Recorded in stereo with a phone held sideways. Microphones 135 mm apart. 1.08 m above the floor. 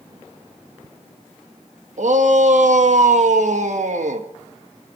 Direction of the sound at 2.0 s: 65° right (ahead or behind).